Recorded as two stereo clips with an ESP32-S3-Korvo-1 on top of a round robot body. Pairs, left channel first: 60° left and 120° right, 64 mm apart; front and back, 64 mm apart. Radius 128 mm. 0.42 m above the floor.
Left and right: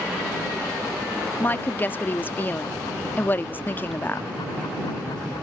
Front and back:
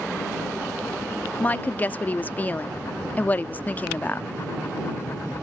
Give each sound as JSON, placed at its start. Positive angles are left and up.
{"t": 1.4, "sound": "a woman speaking", "azimuth_deg": 35}